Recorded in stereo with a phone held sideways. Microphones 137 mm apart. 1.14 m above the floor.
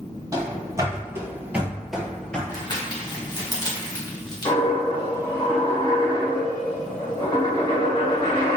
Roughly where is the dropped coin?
Left.